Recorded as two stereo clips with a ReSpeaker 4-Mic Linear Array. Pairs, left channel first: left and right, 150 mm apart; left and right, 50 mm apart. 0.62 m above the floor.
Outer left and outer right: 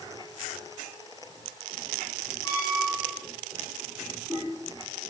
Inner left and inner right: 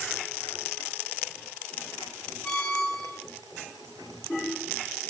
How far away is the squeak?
About 4 m.